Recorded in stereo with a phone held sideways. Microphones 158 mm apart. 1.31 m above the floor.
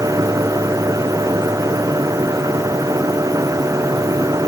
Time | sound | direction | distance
0.0 | a machine running | 20° right (ahead or behind) | ?